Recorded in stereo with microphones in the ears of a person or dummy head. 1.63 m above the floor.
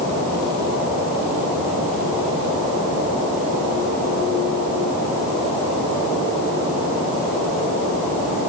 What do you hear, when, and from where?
Only background noise.